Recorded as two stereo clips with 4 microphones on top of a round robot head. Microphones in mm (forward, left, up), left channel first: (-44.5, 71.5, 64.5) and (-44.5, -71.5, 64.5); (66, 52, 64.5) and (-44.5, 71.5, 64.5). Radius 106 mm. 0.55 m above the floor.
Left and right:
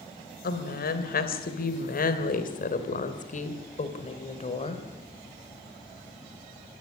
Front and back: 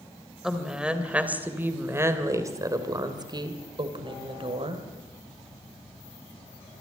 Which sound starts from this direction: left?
A woman speaking, at 0.4 s.